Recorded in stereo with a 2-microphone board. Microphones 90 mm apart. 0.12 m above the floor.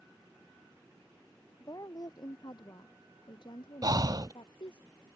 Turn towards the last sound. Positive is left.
turn(degrees=-45)  # may be behind; listen again after turning